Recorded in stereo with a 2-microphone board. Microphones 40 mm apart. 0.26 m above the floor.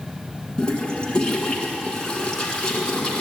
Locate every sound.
0.6 s a toilet flushing: 20° left (ahead or behind), 1.8 m